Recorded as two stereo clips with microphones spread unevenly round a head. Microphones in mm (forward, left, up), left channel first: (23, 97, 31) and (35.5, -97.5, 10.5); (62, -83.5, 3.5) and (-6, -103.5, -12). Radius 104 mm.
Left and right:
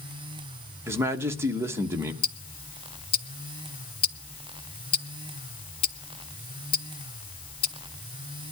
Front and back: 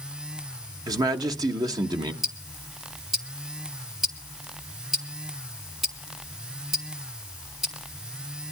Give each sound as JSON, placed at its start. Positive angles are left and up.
{"t": 0.9, "sound": "a man speaking", "azimuth_deg": -160, "distance_m": 1.1}
{"t": 2.2, "sound": "ticking", "azimuth_deg": 90, "distance_m": 0.7}